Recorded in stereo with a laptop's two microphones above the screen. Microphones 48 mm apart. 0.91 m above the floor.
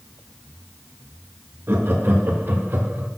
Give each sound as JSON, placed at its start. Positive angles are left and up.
{"t": 1.7, "sound": "laughter", "side_deg": -55, "distance_m": 1.8}